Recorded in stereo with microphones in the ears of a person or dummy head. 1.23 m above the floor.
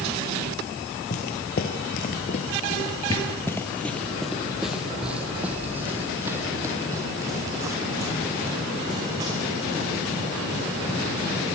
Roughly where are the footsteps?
Left.